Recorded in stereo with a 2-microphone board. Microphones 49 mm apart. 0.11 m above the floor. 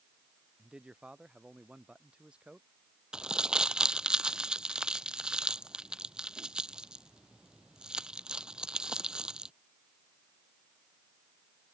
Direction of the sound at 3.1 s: 15° right (ahead or behind).